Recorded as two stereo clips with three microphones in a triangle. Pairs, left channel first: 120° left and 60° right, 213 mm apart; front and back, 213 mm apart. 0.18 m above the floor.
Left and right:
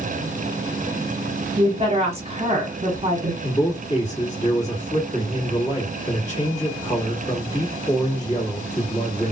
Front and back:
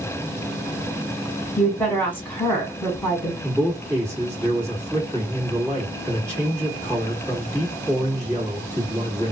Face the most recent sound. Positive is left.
turn(degrees=115)